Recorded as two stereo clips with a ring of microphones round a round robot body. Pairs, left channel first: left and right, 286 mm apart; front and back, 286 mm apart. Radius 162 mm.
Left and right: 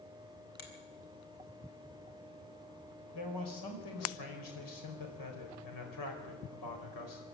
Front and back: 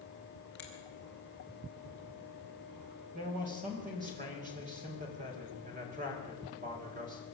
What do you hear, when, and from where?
0.6 s a finger snap: 85° left, 4.5 m
3.1 s a man speaking: 110° left, 5 m